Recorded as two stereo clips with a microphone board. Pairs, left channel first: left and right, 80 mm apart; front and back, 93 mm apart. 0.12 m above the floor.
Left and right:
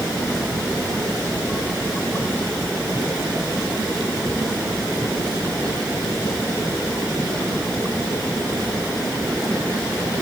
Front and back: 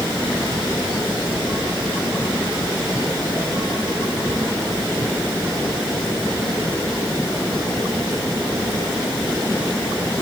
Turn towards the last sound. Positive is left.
No sound to turn to.